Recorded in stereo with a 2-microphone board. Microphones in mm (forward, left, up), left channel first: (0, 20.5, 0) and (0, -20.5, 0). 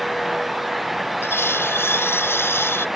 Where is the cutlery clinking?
75° left (ahead or behind).